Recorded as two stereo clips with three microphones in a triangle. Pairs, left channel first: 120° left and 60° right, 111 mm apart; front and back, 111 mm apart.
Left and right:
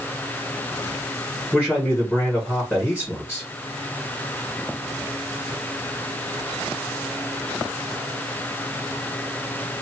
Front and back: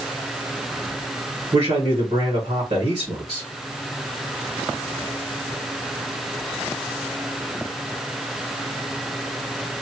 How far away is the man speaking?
About 1.5 m.